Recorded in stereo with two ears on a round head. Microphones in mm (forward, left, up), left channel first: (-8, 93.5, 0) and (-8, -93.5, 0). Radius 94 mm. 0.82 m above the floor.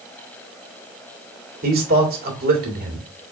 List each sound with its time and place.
1.6 s a man speaking: 45° right (ahead or behind), 2 m